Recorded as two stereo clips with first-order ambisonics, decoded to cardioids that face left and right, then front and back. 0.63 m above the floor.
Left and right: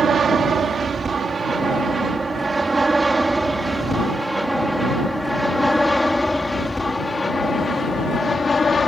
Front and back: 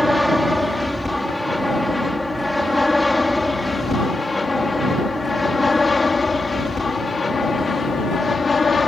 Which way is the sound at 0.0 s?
85° right.